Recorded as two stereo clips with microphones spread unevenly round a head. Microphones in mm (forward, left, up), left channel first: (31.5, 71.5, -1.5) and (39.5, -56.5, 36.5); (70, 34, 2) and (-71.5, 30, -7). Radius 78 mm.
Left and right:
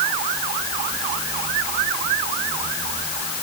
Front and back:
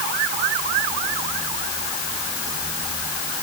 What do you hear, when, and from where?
Only background noise.